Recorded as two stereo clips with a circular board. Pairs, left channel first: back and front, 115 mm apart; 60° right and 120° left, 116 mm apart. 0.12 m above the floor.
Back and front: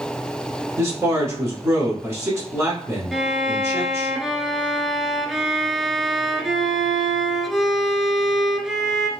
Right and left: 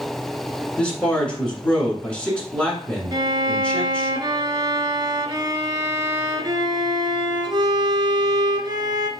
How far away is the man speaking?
About 1.2 m.